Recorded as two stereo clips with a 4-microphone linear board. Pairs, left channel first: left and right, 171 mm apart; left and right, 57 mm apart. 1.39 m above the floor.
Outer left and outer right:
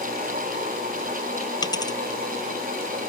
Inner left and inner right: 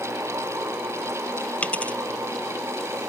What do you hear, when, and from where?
1.6 s a dropped coin: 25° left (ahead or behind)